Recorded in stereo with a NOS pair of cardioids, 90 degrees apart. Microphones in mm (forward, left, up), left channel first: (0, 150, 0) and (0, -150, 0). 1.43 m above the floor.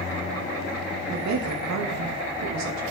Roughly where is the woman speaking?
Ahead right.